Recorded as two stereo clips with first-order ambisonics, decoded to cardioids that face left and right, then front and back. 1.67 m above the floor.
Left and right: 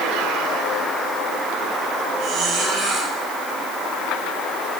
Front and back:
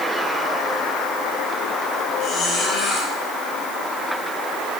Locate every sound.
2.2 s a squeak: 45° right, 5 m